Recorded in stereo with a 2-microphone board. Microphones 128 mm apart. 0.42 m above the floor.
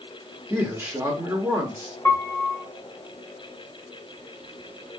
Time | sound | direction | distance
0.5 | a man speaking | 20° right (ahead or behind) | 0.7 m
2.0 | a piano | 20° left (ahead or behind) | 0.6 m